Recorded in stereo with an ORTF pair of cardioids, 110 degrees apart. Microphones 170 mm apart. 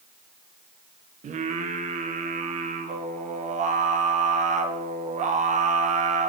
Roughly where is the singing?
Ahead right.